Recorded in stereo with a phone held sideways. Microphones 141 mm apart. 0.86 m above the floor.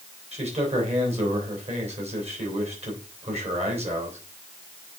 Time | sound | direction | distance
0.3 | a man speaking | 45° right (ahead or behind) | 3 m